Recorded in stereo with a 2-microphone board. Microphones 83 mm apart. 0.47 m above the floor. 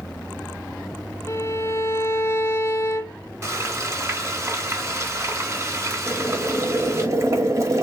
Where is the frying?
35° right (ahead or behind), 1.6 m.